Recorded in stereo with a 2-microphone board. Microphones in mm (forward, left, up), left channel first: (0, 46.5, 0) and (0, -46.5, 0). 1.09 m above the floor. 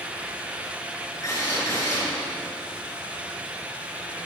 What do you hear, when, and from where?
1.2 s a drill: 40° left (ahead or behind), 8 m